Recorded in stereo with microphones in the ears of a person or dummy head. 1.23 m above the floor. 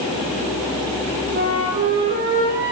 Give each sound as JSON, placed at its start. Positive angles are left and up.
{"t": 1.3, "sound": "a flute", "side_deg": -50, "distance_m": 9.0}